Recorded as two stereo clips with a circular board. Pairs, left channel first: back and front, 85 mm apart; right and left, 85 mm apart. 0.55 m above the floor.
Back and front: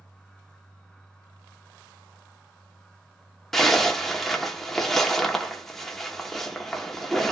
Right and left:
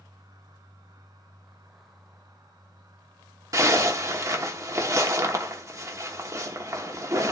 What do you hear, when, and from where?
3.5 s a zipper: 95° left, 0.9 m